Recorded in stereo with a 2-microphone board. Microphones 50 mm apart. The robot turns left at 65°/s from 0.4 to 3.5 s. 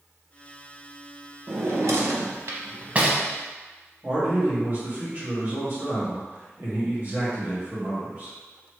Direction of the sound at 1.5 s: 50° right (ahead or behind).